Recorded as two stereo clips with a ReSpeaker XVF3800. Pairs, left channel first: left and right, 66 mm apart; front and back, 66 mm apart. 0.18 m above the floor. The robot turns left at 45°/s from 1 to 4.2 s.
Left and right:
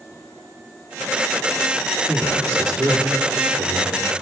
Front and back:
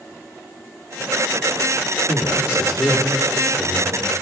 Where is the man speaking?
30° right, 4.5 m; by 4.0 s 115° right, 4.5 m.